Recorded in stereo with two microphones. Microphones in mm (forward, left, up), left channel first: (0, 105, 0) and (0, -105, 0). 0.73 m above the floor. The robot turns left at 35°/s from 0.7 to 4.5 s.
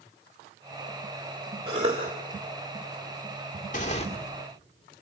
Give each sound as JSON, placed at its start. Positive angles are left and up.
{"t": 1.7, "sound": "a cough", "side_deg": -25, "distance_m": 1.8}
{"t": 3.7, "sound": "tearing paper", "side_deg": 40, "distance_m": 2.5}